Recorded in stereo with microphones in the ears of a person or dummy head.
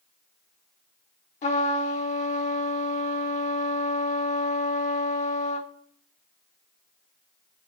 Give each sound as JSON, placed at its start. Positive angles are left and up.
{"t": 1.4, "sound": "a trumpet", "side_deg": 35, "distance_m": 1.0}